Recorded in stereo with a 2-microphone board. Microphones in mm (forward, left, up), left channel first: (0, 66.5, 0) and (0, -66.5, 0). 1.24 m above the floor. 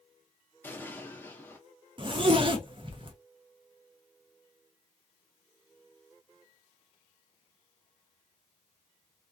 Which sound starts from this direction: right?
A zipper, at 2.0 s.